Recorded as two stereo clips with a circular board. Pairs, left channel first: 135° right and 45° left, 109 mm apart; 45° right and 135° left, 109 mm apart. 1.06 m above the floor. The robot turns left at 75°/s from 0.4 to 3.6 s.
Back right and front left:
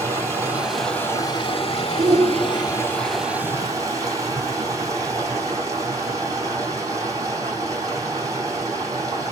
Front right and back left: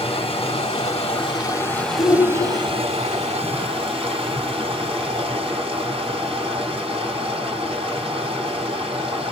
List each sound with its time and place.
0.0 s running water: 15° right, 3 m; by 9.3 s 105° left, 3 m
2.0 s a shout: 20° left, 1.3 m; by 3.0 s 55° right, 1.3 m